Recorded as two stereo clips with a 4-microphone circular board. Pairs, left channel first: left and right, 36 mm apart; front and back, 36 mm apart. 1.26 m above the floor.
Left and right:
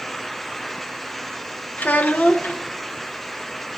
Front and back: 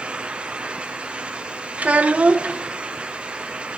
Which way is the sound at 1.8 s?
130° left.